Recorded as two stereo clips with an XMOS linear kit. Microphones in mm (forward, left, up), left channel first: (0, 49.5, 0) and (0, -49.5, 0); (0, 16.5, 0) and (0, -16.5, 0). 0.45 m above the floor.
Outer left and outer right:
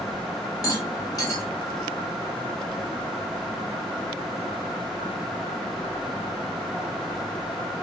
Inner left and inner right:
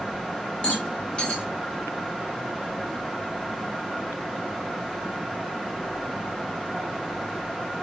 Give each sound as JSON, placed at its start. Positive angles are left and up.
{"t": 0.6, "sound": "a rattle", "side_deg": 35, "distance_m": 1.0}